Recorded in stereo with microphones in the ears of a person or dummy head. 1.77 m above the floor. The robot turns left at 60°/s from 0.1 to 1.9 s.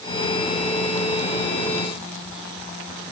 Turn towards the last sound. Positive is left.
No sound to turn to.